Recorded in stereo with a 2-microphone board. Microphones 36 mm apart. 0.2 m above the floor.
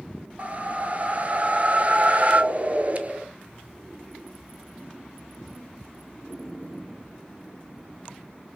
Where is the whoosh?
40° right (ahead or behind), 0.5 m.